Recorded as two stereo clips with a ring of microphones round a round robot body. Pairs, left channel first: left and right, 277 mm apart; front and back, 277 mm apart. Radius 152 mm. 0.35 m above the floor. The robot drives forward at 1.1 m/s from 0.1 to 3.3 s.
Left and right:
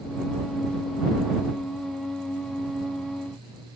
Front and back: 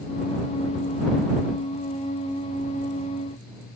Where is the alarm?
No alarm in this recording.